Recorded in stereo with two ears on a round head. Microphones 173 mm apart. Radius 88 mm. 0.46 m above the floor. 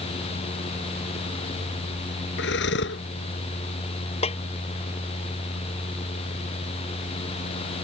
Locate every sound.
2.4 s breathing: 70° left (ahead or behind)
4.2 s a snare drum: 30° left (ahead or behind)